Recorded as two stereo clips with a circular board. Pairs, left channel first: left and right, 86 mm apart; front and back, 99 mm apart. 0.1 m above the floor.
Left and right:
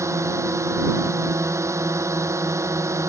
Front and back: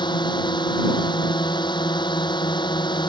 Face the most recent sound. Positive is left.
turn(degrees=-35)